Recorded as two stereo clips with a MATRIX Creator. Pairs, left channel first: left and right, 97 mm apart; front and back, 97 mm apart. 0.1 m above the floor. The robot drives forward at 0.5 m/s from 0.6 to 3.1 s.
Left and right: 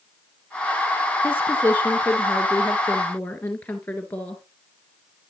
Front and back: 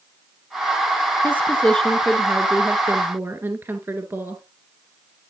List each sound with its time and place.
1.2 s a woman speaking: 45° left, 1.2 m; by 4.4 s 145° left, 1.2 m